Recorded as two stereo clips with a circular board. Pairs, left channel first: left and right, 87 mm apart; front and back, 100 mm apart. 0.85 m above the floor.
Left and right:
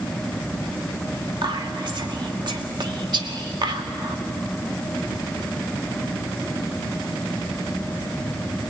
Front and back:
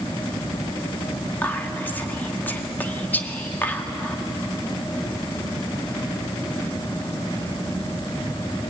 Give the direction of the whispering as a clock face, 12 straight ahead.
2 o'clock.